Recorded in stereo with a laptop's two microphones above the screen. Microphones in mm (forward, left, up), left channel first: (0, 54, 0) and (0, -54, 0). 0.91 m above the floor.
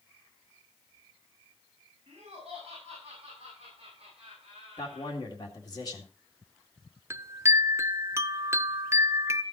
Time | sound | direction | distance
2.1 | laughter | 55° right (ahead or behind) | 6.5 m
4.8 | a man speaking | 35° left (ahead or behind) | 2 m
7.1 | a chime | 25° right (ahead or behind) | 0.6 m